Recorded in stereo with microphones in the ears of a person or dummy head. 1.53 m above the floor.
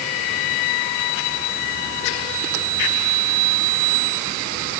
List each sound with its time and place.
Only background noise.